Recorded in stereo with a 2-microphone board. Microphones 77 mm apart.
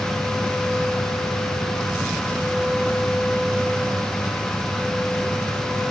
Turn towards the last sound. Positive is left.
No sound to turn to.